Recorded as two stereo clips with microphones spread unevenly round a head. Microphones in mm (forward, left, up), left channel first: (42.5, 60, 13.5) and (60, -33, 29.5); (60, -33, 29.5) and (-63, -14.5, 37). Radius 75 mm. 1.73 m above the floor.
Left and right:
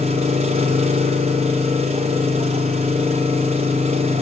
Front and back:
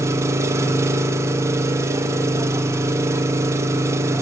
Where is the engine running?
120° right, 0.9 m.